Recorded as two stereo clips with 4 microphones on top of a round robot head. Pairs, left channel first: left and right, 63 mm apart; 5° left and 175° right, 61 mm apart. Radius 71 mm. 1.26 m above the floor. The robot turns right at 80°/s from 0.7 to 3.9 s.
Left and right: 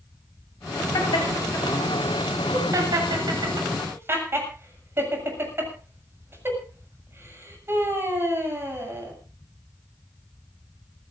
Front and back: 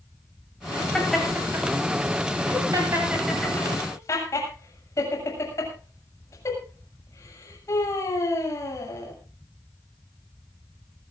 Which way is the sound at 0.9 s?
85° left.